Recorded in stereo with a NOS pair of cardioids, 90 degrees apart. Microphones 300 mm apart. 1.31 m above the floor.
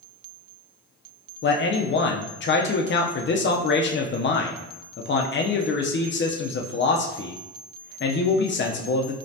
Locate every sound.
1.4 s a man speaking: 40° left, 0.7 m